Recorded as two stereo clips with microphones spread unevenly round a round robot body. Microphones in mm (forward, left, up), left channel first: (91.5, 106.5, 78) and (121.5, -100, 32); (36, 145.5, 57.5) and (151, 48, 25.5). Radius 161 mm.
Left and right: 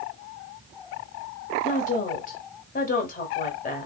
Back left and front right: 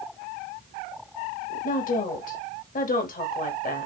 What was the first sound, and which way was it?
A woman speaking, 150° left.